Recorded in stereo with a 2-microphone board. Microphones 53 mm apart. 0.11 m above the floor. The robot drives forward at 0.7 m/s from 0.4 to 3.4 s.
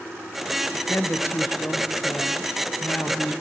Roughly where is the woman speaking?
Left.